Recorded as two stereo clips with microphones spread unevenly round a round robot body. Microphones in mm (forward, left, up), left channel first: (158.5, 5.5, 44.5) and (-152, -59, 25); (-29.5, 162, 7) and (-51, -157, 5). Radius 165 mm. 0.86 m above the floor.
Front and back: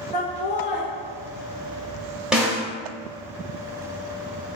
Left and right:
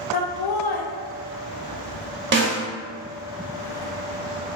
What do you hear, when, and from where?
0.1 s laughter: 85° left, 0.5 m
2.3 s a snare drum: 75° right, 0.6 m